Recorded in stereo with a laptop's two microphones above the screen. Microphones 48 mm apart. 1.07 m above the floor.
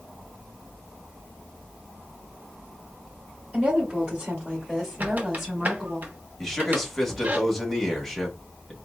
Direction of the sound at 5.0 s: 35° right (ahead or behind).